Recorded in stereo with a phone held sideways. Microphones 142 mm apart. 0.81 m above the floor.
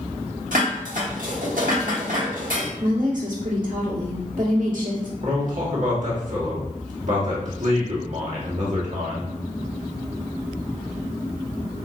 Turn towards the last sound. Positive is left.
turn(degrees=-60)  # may be behind; listen again after turning